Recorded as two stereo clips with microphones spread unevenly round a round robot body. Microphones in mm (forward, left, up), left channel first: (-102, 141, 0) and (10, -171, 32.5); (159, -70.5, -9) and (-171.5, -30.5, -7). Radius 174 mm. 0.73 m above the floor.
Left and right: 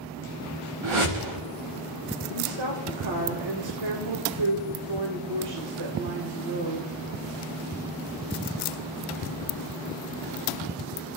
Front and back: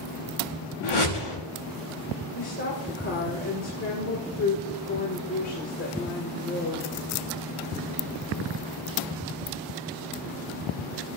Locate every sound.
0.8 s a whoosh: 35° right, 5.5 m
2.3 s a woman speaking: 60° right, 3 m